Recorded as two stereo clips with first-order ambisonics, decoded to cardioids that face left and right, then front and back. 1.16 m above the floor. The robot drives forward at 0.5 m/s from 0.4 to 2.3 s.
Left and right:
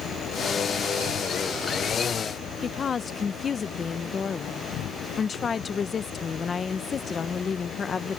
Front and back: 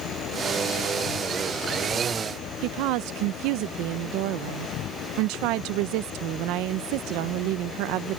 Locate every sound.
0.0 s an insect: 40° left
2.6 s a woman speaking: 160° left